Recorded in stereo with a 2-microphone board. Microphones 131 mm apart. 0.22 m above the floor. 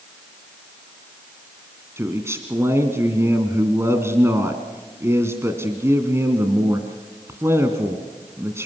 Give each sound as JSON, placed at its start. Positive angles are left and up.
{"t": 2.0, "sound": "a man speaking", "side_deg": -20, "distance_m": 1.9}